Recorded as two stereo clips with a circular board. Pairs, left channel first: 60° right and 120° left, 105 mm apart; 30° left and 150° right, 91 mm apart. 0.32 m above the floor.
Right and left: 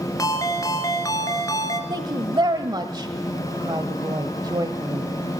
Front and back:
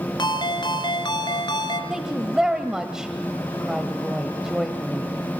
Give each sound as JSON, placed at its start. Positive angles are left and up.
{"t": 0.2, "sound": "a ringtone", "azimuth_deg": -5, "distance_m": 2.5}
{"t": 1.9, "sound": "a woman speaking", "azimuth_deg": 130, "distance_m": 1.5}